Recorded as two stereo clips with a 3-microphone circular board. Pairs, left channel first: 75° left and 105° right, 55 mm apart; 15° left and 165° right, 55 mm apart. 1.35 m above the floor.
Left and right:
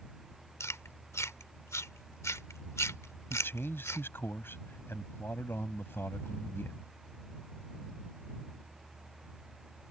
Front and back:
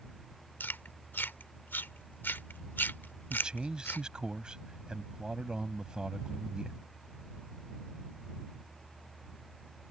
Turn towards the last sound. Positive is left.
turn(degrees=120)